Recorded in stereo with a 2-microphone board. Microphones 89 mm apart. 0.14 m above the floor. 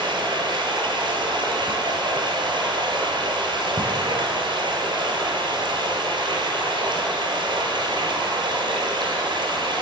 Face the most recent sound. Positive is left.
turn(degrees=-60)  # may be behind; listen again after turning